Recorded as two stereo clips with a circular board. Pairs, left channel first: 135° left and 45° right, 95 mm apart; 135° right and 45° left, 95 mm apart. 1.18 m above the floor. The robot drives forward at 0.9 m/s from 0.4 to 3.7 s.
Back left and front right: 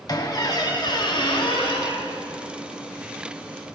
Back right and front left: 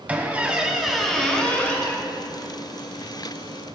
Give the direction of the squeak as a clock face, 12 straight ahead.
8 o'clock.